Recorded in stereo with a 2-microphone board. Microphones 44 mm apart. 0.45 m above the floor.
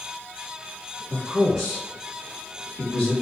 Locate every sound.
1.1 s a man speaking: 15° right (ahead or behind), 1.0 m; by 3.1 s 50° left (ahead or behind), 1.2 m